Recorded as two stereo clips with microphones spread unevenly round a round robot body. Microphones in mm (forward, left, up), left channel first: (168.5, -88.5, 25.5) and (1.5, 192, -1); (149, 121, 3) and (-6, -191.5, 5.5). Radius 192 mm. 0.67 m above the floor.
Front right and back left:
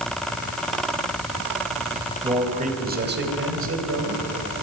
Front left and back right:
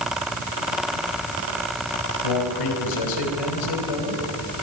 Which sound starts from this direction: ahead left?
A man speaking, at 2.2 s.